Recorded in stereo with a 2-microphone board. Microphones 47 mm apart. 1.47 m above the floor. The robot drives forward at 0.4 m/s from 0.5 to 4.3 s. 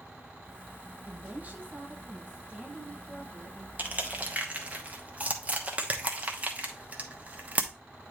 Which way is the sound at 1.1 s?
40° right (ahead or behind).